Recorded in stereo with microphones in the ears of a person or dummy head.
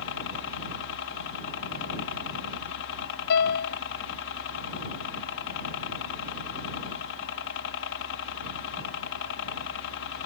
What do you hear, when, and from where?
0.0 s a helicopter: 65° left (ahead or behind)
3.3 s a piano: 55° left (ahead or behind)